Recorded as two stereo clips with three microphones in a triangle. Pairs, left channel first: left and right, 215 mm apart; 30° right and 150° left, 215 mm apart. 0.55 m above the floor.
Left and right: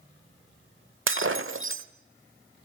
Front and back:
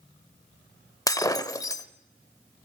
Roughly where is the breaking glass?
Right.